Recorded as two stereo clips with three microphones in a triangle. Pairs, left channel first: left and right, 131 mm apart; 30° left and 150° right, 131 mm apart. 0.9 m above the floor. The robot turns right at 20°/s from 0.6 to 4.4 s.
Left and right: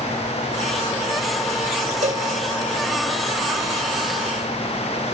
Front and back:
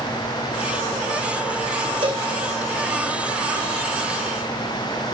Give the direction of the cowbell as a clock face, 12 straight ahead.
3 o'clock.